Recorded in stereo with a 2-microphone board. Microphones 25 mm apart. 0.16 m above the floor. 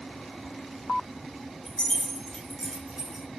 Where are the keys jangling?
55° left (ahead or behind), 1.8 m; by 3.2 s 45° right (ahead or behind), 1.4 m.